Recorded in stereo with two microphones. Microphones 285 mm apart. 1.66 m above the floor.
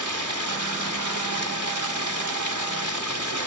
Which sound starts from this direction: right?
Running water, at 0.0 s.